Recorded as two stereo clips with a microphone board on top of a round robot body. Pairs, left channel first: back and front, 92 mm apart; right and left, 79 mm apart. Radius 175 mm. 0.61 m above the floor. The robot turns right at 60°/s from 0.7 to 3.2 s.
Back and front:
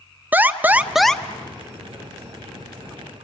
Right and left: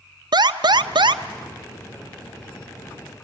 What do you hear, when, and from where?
0.3 s an alarm: 70° left, 1.0 m; by 1.2 s 105° left, 1.0 m